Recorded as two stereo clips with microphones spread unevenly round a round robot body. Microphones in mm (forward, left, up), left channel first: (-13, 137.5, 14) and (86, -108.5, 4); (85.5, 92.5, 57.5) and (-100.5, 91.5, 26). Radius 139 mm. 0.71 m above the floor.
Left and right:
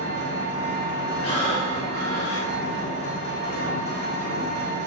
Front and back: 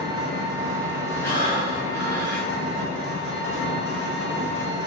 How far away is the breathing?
About 1.7 m.